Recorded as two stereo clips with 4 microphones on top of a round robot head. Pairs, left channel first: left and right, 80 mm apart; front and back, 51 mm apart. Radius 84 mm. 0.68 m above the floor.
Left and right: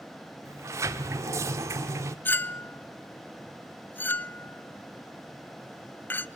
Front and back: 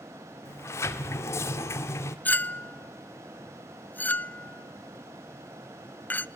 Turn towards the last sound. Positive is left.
turn(degrees=35)